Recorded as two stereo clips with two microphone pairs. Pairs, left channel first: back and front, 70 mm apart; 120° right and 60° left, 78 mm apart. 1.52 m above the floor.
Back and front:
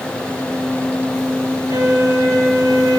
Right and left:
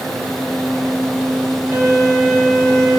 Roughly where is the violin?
Ahead.